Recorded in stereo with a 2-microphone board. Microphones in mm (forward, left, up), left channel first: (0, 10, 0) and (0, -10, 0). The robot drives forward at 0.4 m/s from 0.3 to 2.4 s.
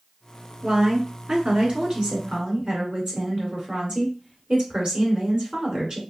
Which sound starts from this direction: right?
A woman speaking, at 0.6 s.